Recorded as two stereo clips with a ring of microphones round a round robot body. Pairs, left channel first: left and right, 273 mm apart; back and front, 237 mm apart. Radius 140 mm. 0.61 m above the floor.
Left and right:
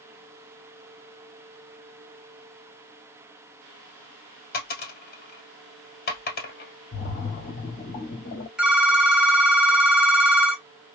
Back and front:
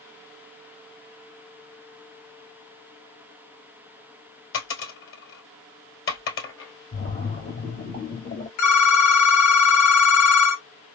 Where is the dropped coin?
145° left, 1.7 m.